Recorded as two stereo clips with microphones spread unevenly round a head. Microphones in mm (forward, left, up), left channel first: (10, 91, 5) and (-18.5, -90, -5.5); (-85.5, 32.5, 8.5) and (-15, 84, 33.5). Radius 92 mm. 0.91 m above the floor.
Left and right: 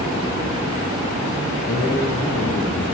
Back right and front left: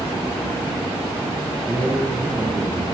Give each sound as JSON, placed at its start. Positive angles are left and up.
{"t": 1.6, "sound": "a man speaking", "azimuth_deg": 125, "distance_m": 10.0}